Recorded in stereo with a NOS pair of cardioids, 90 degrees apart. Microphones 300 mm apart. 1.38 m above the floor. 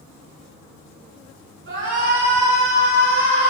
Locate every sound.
1.7 s a shout: 40° right, 3.5 m; by 3.5 s 20° right, 4.5 m